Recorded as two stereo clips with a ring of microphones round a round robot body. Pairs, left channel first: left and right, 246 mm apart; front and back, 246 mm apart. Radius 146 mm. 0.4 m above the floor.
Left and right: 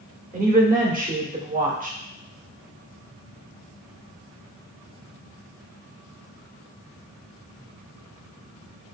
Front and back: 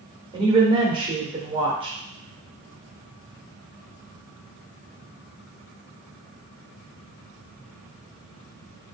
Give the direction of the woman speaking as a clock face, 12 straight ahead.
4 o'clock.